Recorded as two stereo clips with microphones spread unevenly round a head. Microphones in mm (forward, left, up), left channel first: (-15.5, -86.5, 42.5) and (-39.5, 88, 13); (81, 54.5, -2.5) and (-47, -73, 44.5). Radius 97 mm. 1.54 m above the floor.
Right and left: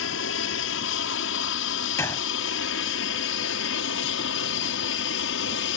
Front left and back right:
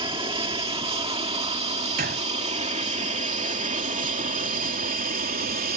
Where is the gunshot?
150° right.